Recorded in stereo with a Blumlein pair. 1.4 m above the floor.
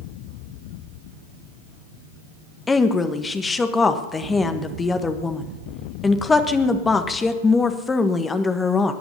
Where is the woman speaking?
15° left, 1.4 m.